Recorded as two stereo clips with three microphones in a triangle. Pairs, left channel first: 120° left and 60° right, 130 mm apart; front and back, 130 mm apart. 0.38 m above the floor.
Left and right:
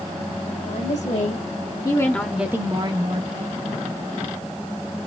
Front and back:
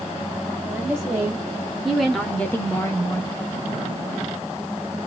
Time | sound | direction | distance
0.7 | a woman speaking | 105° left | 2.0 m